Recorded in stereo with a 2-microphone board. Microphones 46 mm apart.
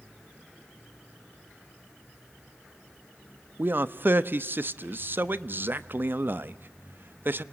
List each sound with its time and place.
3.6 s a man speaking: 45° right (ahead or behind), 0.9 m